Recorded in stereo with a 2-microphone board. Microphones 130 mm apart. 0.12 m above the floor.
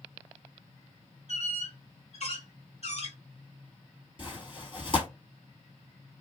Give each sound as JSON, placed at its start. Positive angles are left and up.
{"t": 1.3, "sound": "a squeak", "side_deg": 55, "distance_m": 1.2}
{"t": 4.2, "sound": "tearing paper", "side_deg": 40, "distance_m": 2.0}